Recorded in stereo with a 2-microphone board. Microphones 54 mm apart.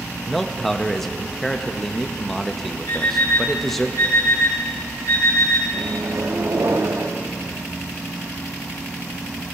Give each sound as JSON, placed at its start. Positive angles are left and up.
{"t": 0.2, "sound": "a man speaking", "side_deg": 5, "distance_m": 0.6}
{"t": 2.9, "sound": "an alarm clock", "side_deg": 80, "distance_m": 4.0}
{"t": 5.7, "sound": "a microwave", "side_deg": -80, "distance_m": 0.7}